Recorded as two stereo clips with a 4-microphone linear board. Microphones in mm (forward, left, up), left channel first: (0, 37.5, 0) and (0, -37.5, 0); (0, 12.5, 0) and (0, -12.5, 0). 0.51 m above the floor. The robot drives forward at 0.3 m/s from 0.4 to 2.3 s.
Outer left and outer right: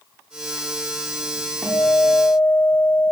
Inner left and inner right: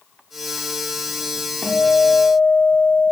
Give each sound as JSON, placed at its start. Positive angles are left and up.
{"t": 1.6, "sound": "a guitar", "side_deg": 15, "distance_m": 0.6}